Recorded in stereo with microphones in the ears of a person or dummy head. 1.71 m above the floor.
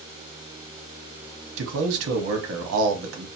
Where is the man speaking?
65° right (ahead or behind), 0.9 m.